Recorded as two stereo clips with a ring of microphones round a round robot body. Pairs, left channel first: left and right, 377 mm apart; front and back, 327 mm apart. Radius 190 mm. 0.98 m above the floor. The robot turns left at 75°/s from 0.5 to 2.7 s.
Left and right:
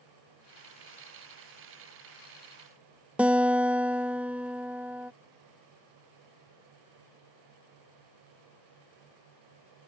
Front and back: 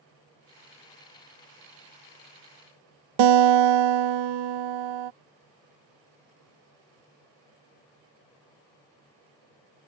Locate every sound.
3.2 s a guitar: 175° right